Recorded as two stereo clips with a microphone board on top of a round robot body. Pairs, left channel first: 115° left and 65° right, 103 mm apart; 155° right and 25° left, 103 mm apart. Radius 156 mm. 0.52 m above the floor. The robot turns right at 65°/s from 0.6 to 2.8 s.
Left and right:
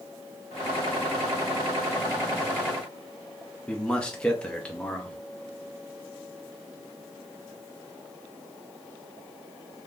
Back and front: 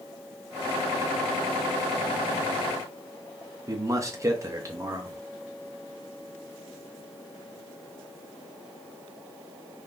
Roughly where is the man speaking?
Ahead left.